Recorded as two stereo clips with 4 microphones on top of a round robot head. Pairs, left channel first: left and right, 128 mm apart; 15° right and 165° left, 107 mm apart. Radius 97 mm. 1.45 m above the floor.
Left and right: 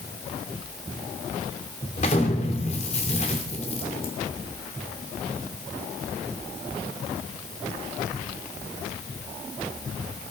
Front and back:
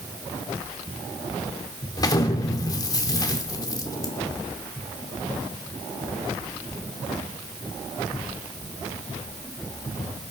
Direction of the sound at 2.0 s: 40° left.